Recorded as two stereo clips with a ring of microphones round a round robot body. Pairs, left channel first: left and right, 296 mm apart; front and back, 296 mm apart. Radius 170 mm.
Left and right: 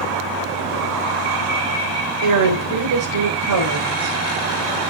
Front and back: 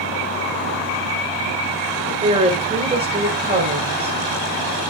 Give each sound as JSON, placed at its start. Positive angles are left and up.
{"t": 2.2, "sound": "a woman speaking", "azimuth_deg": -110, "distance_m": 3.5}